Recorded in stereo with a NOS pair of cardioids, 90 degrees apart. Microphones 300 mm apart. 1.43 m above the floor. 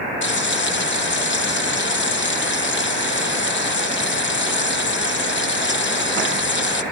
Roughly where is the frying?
Ahead left.